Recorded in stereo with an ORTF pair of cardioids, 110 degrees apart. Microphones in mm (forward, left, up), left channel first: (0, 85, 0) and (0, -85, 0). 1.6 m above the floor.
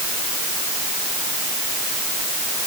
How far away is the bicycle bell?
I don't hear a bicycle bell.